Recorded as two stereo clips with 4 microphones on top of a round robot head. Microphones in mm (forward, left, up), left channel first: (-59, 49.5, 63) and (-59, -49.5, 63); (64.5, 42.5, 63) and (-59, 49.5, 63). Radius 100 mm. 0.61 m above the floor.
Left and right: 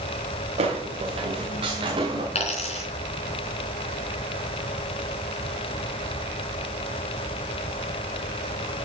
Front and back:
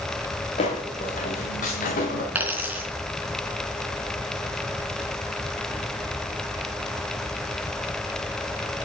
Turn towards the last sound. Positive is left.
turn(degrees=100)